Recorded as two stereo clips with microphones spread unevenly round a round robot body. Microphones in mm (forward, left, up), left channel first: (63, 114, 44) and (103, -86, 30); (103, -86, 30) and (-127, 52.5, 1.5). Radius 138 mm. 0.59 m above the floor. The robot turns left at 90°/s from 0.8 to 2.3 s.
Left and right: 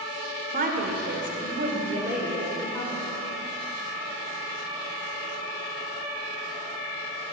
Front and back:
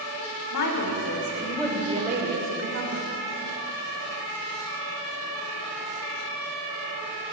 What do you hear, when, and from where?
0.5 s a woman speaking: 40° right, 1.8 m; by 3.1 s 175° right, 1.8 m